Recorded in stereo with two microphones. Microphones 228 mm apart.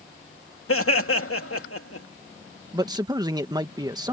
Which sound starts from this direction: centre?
A man speaking, at 2.7 s.